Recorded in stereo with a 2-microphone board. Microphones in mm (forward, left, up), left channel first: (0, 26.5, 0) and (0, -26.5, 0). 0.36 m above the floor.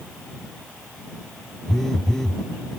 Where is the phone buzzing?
10° left (ahead or behind).